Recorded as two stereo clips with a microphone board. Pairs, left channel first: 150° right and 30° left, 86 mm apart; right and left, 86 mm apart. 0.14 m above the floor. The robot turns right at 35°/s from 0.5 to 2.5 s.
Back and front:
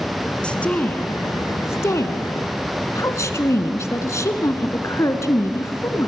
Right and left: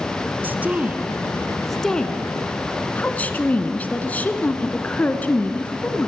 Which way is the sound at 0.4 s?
140° left.